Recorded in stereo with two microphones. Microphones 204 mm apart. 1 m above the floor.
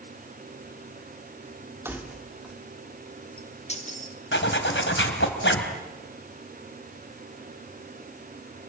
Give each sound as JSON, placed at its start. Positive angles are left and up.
{"t": 1.9, "sound": "keys jangling", "side_deg": -10, "distance_m": 1.9}
{"t": 4.3, "sound": "a zipper", "side_deg": 80, "distance_m": 3.0}